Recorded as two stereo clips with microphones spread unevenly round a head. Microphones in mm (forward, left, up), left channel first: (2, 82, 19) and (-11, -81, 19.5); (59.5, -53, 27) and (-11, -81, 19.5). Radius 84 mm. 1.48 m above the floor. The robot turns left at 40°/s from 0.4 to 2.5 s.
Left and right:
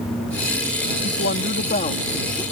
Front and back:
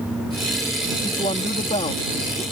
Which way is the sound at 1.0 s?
65° left.